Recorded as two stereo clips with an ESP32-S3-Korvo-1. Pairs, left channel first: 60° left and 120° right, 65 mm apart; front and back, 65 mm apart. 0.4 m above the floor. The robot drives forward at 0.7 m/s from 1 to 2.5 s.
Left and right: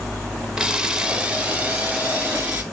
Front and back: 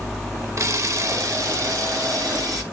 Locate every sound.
0.6 s a camera shutter: 165° left, 0.5 m; by 2.6 s 175° left, 1.5 m